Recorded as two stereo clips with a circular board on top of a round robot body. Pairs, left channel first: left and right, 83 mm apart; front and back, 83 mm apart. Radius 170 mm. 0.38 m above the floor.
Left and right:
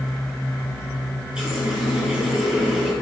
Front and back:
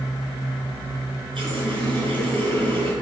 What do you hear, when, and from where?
1.4 s a running tap: 170° right, 6 m